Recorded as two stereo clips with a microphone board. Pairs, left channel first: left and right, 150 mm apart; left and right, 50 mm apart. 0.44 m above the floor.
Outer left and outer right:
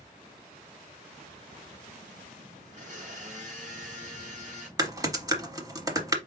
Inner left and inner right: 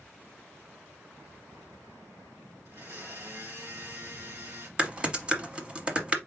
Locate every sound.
2.6 s a blender: 55° right (ahead or behind), 3 m
4.8 s typing on a keyboard: 25° right (ahead or behind), 0.8 m